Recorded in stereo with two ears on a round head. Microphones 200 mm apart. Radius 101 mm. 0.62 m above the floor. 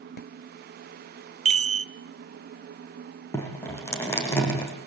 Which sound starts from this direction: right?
A chime, at 1.4 s.